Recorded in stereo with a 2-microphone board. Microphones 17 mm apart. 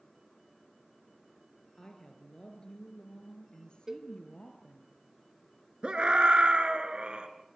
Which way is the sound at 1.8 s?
45° left (ahead or behind).